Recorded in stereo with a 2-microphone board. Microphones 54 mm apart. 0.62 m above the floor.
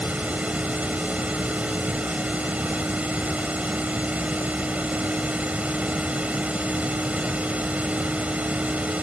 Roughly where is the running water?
Right.